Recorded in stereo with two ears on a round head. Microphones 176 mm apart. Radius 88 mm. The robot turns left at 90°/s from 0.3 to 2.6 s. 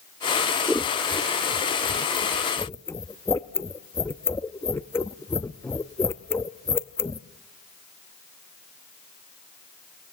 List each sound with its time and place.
0.7 s scissors: 5° right (ahead or behind), 0.6 m; by 7.2 s 10° left (ahead or behind), 0.6 m